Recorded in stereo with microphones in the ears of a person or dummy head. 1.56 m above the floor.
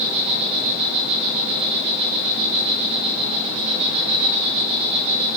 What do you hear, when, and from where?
0.0 s an insect: 30° right (ahead or behind), 3.5 m